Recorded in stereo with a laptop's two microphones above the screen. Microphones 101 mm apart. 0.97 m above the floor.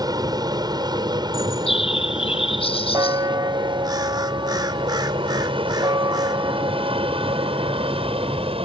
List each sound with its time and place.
0.0 s an aircraft: 40° right (ahead or behind); by 8.7 s 70° right (ahead or behind)
1.3 s a bird: 70° left (ahead or behind)
2.9 s a bell: 40° right (ahead or behind)